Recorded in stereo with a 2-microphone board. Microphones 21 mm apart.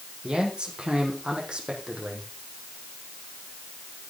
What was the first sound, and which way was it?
A man speaking, 50° right (ahead or behind).